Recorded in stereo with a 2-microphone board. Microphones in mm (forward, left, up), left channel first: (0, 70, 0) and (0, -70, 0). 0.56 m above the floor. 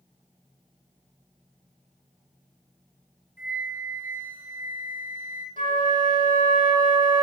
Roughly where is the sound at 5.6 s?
Right.